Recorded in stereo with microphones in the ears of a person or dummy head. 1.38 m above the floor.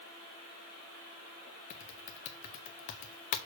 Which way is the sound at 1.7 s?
40° left (ahead or behind).